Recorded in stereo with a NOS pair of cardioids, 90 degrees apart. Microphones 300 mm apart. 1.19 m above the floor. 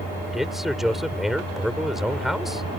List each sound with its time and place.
0.3 s a man speaking: straight ahead